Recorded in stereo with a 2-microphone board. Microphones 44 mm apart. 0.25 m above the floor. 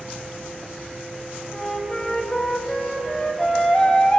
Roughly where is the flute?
Centre.